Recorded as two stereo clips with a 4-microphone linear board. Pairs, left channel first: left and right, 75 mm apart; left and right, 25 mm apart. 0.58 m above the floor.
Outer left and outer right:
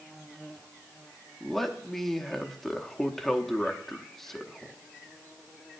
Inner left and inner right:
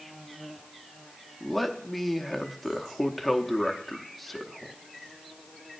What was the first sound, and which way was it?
A man speaking, 5° left (ahead or behind).